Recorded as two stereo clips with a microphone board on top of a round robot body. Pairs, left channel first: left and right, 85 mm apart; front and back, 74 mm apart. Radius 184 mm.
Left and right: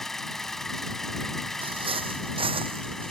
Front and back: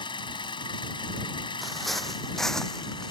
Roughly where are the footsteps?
Right.